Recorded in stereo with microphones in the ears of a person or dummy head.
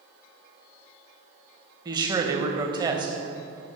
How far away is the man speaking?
About 0.8 m.